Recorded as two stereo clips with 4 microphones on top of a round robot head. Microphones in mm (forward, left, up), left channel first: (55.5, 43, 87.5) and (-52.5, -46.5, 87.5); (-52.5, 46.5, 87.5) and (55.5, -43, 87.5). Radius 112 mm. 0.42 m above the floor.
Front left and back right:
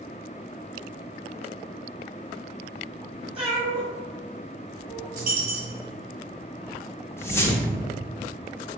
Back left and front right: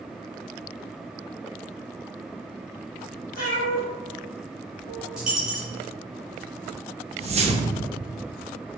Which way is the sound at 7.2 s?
25° right.